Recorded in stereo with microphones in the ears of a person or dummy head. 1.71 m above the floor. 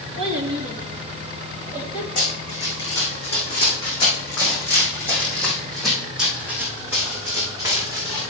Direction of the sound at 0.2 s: 35° right (ahead or behind).